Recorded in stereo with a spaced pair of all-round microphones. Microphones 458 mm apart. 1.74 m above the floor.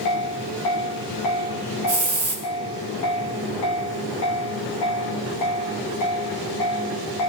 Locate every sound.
1.9 s a hiss: 45° right (ahead or behind), 5.5 m